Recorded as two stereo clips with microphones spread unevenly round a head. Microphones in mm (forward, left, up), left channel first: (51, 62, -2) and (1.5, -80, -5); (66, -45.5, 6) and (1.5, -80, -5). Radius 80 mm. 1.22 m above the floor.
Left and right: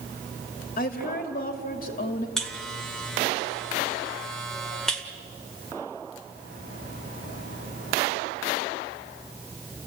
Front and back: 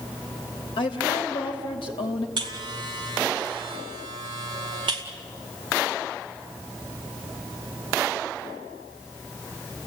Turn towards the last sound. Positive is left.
turn(degrees=160)